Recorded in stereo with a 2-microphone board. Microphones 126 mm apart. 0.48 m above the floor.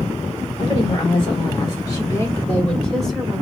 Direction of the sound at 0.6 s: 50° left (ahead or behind).